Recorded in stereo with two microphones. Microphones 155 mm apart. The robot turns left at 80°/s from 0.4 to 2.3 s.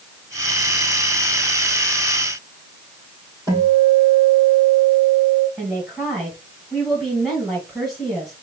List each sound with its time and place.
3.5 s a guitar: 20° left (ahead or behind), 3 m
5.6 s a woman speaking: centre (ahead or behind), 2 m